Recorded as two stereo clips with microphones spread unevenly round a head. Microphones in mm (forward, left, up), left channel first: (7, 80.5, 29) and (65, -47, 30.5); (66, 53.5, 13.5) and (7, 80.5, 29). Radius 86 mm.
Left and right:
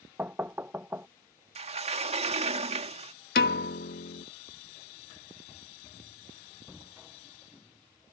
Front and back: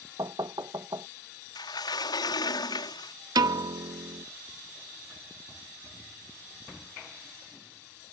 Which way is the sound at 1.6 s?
20° right.